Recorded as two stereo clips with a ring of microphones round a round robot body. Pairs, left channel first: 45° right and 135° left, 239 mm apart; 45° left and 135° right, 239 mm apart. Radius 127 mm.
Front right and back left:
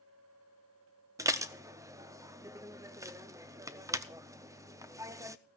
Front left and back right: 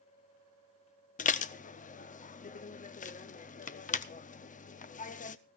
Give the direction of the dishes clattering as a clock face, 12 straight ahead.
10 o'clock.